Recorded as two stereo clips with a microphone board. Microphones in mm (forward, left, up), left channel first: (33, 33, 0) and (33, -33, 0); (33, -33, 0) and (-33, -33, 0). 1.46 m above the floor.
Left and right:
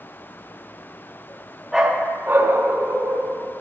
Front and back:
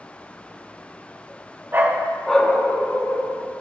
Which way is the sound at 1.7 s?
170° right.